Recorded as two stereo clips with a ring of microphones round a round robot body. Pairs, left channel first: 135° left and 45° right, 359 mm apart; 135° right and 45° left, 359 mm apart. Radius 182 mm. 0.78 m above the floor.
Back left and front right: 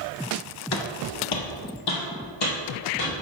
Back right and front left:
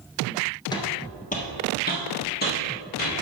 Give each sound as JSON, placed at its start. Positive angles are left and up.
{"t": 0.7, "sound": "footsteps", "azimuth_deg": 150, "distance_m": 0.9}